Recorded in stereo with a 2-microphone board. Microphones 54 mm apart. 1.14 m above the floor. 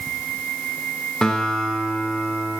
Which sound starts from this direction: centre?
A guitar, at 1.2 s.